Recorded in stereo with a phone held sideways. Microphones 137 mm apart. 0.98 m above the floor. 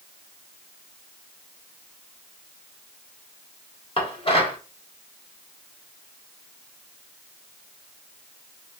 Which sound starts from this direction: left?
Dishes clattering, at 4.0 s.